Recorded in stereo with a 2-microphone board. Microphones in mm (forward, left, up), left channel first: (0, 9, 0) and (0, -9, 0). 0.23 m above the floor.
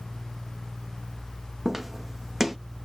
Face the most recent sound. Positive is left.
turn(degrees=-15)  # may be behind; listen again after turning